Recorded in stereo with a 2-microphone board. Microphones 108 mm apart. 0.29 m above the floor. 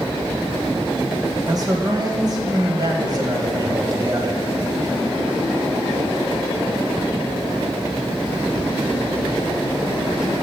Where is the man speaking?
35° right (ahead or behind), 1.1 m.